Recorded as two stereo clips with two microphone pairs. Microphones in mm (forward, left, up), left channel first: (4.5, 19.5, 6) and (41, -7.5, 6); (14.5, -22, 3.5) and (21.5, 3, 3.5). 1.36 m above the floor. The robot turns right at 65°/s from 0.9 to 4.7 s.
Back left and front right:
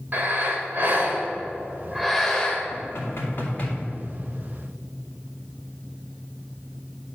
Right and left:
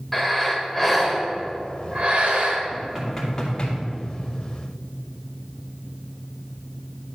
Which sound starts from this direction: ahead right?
Breathing, at 0.1 s.